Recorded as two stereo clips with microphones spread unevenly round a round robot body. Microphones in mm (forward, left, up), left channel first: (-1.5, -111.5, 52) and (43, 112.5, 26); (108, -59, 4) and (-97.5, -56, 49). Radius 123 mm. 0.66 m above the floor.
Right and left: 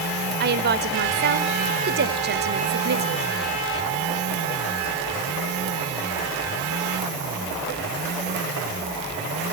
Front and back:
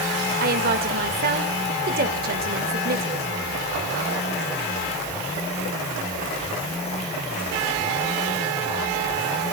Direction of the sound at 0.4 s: 125° left.